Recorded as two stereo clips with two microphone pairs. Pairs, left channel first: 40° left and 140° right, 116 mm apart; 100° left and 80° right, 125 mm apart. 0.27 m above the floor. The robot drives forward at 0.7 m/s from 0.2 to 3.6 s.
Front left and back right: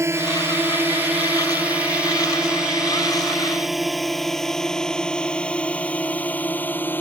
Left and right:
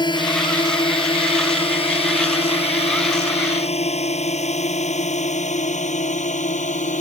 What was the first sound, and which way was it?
A drone, 155° left.